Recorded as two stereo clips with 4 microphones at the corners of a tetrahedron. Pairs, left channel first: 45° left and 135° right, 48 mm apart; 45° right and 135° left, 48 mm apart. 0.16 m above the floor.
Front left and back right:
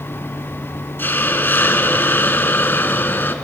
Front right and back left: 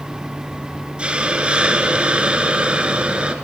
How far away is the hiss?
About 1.4 m.